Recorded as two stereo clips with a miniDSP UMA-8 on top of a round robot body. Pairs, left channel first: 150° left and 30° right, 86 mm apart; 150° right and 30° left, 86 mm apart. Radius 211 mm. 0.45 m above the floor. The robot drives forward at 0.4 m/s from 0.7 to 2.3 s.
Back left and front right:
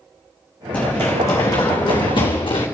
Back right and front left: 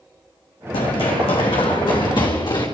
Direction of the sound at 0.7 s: 135° right.